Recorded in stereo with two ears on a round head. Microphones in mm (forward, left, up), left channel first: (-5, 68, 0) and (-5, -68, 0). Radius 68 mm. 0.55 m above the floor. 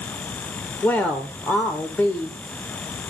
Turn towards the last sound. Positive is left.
turn(degrees=15)  # may be behind; listen again after turning